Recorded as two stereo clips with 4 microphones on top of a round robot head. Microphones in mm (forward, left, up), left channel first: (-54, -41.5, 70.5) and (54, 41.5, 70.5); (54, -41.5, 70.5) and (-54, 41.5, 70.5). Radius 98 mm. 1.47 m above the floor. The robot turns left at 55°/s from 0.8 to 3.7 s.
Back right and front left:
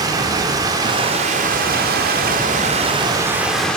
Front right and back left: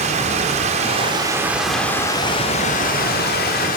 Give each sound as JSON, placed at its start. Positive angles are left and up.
{"t": 0.0, "sound": "running water", "azimuth_deg": 100, "distance_m": 3.0}